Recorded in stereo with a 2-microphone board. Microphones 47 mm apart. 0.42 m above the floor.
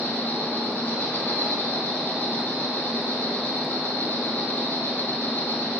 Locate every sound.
0.0 s an insect: 40° left (ahead or behind), 1.0 m